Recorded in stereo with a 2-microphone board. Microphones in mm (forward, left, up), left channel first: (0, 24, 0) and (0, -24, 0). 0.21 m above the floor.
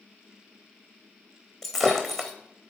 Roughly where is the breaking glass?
Centre.